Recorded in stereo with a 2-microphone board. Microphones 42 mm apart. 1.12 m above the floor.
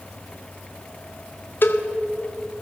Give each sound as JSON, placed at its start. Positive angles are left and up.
{"t": 1.6, "sound": "a cowbell", "side_deg": 60, "distance_m": 1.7}